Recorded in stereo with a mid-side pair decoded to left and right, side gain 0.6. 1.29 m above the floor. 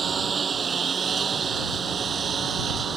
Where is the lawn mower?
30° right; by 3.0 s 35° right.